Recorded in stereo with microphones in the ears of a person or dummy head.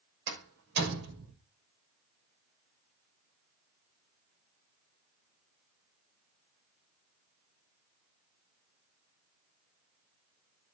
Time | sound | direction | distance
0.3 | a door slam | 65° right (ahead or behind) | 6 m